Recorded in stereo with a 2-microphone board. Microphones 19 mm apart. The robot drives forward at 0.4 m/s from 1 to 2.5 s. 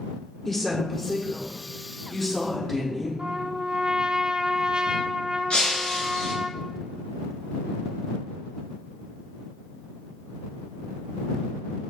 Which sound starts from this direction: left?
Breaking glass, at 5.5 s.